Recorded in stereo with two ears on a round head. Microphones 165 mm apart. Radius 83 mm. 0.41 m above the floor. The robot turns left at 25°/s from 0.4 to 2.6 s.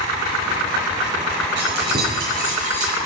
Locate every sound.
1.6 s keys jangling: 70° right (ahead or behind), 5.5 m; by 3.0 s 45° right (ahead or behind), 5.5 m